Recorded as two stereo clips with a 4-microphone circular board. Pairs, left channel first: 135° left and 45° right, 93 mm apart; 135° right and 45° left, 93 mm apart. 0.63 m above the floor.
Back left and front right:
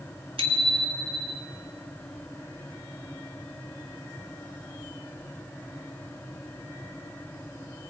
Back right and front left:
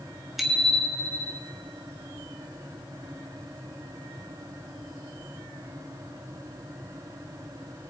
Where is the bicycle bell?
45° right, 2.5 m; by 1.4 s 65° right, 3.5 m.